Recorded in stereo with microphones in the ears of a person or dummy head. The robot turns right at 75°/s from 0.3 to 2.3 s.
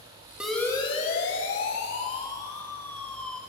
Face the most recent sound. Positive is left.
turn(degrees=5)  # may be behind; listen again after turning